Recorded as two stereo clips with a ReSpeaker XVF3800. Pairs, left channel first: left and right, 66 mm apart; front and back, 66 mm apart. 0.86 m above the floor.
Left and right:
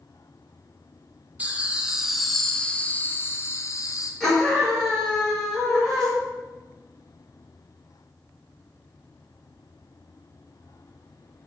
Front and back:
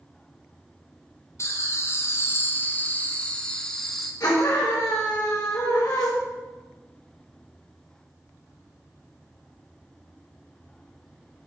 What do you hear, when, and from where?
1.4 s laughter: 30° right, 1.2 m; by 4.1 s 85° left, 1.2 m
4.2 s a scream: 5° left, 1.9 m